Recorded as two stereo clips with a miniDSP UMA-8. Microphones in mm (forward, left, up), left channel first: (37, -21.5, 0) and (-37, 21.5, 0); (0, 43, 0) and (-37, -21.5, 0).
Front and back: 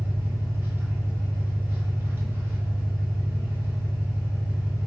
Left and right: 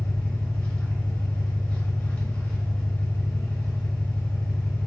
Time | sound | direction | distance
0.0 | an engine running | 115° left | 1.0 m